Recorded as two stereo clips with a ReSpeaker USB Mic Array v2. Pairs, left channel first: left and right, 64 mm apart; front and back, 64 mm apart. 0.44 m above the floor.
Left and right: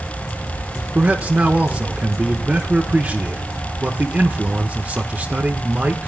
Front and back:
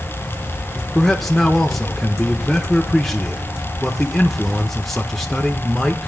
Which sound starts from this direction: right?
A man speaking, at 0.9 s.